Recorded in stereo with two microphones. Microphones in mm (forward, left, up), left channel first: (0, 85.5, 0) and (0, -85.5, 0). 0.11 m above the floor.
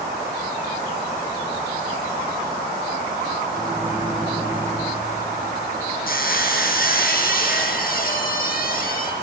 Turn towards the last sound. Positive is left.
turn(degrees=60)  # may be behind; listen again after turning